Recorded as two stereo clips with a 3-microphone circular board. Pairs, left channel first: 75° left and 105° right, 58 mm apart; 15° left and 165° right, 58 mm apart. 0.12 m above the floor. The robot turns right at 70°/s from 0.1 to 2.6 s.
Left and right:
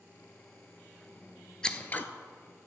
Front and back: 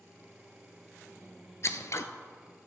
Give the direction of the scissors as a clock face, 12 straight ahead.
12 o'clock.